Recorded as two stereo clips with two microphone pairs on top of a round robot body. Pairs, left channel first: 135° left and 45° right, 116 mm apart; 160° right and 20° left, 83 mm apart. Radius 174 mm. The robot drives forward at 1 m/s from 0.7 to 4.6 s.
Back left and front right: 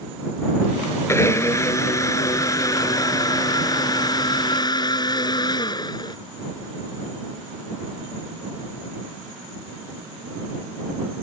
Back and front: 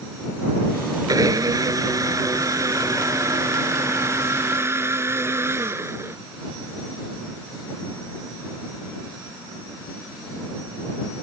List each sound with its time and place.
1.1 s a blender: 65° left; by 6.2 s 80° left